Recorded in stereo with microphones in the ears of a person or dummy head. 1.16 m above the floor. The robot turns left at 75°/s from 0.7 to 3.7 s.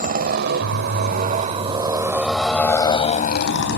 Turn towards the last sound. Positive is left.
turn(degrees=70)  # may be behind; listen again after turning